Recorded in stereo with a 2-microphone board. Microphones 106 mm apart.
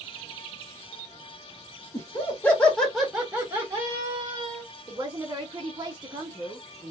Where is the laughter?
30° left (ahead or behind), 1.5 m; by 4.6 s 40° right (ahead or behind), 1.7 m.